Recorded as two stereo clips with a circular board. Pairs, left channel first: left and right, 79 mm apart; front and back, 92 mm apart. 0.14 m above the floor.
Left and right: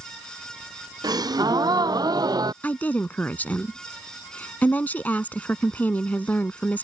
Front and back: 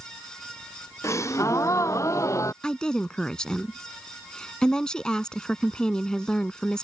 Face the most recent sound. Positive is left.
turn(degrees=70)